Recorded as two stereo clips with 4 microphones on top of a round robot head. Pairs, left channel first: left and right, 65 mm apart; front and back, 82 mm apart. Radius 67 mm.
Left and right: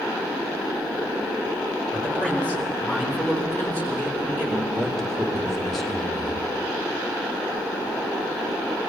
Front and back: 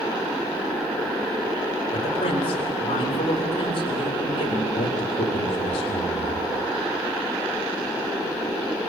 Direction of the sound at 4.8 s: 5° left.